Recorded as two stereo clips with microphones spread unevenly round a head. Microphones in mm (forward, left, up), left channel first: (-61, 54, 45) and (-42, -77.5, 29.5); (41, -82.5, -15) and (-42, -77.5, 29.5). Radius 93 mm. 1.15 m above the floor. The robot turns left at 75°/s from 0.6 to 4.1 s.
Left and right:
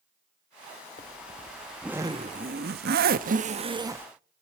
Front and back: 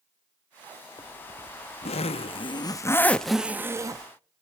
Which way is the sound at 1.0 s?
70° left.